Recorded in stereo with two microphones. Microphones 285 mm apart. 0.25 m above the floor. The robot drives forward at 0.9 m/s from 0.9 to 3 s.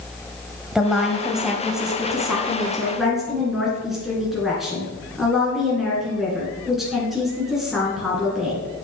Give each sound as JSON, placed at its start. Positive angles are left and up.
{"t": 0.8, "sound": "a woman speaking", "side_deg": 0, "distance_m": 1.0}